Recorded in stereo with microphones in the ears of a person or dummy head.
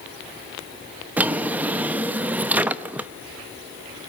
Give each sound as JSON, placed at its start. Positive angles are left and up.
{"t": 1.2, "sound": "a drawer", "side_deg": -15, "distance_m": 0.8}